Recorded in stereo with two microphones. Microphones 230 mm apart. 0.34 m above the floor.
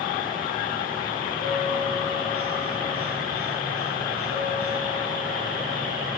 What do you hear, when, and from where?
1.4 s a bell: 65° right (ahead or behind), 4.5 m